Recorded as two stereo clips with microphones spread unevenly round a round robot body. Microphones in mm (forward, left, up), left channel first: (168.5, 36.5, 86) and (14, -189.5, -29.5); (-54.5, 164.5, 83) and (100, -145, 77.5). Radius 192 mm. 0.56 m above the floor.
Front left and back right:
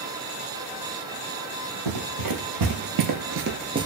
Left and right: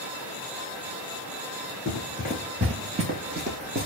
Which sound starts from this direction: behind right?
Running footsteps, at 1.9 s.